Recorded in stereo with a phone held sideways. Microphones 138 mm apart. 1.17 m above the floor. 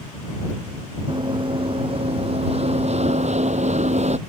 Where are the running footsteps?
35° right (ahead or behind); by 4.2 s 55° right (ahead or behind).